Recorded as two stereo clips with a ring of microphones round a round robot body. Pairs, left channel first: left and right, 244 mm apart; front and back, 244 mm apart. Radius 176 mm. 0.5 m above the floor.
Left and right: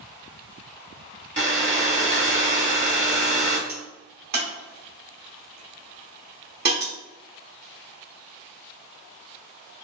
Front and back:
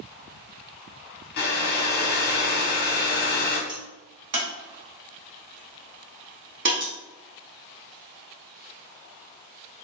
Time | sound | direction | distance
1.4 | a hair dryer | 35° right | 0.9 m
3.7 | a crack | 140° right | 0.6 m